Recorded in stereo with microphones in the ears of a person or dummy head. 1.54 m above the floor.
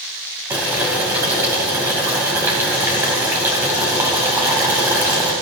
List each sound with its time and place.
0.5 s boiling: 15° right (ahead or behind), 3 m